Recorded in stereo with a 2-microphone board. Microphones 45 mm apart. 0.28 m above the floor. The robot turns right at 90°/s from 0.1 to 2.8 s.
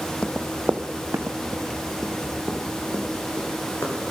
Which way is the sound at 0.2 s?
30° left (ahead or behind).